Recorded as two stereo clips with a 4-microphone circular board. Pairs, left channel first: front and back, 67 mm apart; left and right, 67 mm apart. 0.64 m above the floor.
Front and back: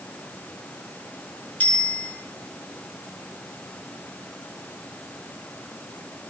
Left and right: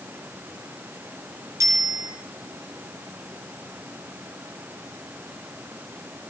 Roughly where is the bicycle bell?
Ahead right.